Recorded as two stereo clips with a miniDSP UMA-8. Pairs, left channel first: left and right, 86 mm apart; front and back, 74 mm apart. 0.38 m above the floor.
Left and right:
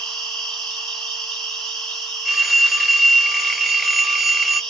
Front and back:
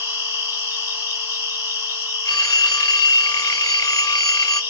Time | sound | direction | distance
0.0 | an insect | 165° left | 1.8 m
2.2 | a phone ringing | straight ahead | 0.7 m